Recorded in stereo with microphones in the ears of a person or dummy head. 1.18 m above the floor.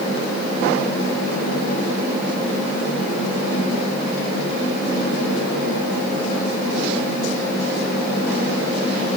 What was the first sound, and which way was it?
Only background noise.